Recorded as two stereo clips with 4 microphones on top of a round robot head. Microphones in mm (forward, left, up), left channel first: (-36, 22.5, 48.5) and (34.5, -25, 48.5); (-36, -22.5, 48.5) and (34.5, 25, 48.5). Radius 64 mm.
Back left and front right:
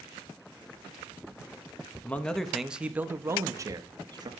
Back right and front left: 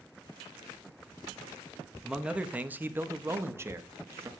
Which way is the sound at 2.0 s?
105° left.